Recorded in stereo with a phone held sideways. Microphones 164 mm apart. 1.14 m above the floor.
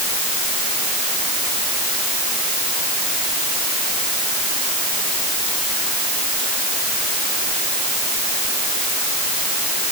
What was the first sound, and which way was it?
Only background noise.